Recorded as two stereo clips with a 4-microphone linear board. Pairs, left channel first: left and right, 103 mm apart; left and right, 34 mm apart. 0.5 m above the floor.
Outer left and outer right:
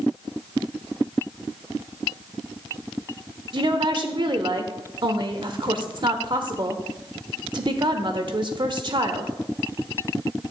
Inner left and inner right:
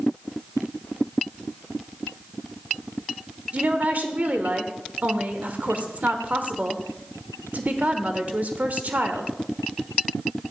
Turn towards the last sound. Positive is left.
turn(degrees=-50)  # may be behind; listen again after turning